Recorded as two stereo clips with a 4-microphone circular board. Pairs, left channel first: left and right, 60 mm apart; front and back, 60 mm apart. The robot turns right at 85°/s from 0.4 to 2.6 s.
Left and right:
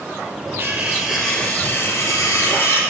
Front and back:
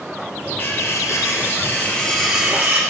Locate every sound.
0.6 s cutlery clinking: 50° right, 1.6 m; by 2.8 s 120° left, 1.6 m